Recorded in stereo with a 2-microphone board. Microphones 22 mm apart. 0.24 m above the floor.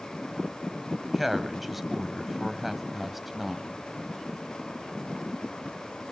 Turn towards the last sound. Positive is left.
turn(degrees=-10)  # may be behind; listen again after turning